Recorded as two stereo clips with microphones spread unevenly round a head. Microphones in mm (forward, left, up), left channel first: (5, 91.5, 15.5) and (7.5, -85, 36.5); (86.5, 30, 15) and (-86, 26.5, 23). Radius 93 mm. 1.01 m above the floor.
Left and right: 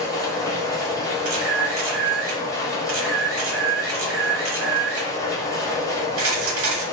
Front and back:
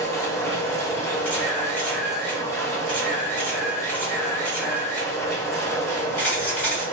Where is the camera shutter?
80° right, 1.0 m.